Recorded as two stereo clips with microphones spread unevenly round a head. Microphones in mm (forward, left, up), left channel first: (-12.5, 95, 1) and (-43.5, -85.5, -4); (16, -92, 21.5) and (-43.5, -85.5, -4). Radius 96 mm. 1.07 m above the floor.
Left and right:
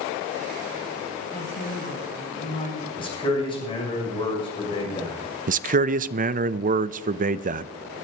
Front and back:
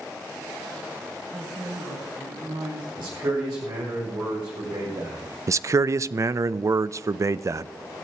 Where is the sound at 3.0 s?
145° left, 6.5 m.